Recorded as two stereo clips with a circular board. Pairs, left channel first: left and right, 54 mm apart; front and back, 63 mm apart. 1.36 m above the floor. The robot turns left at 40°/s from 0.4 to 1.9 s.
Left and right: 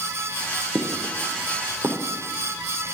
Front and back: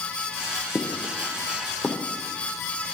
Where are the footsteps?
90° right, 2.5 m; by 2.0 s 85° right, 2.5 m.